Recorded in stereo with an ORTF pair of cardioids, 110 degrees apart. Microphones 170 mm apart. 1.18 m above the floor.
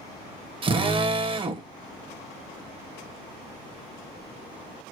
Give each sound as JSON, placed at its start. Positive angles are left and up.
{"t": 0.6, "sound": "a drill", "azimuth_deg": -30, "distance_m": 0.9}